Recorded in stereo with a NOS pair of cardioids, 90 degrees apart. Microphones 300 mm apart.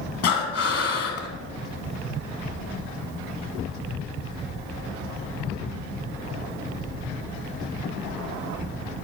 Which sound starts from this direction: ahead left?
Breathing, at 0.2 s.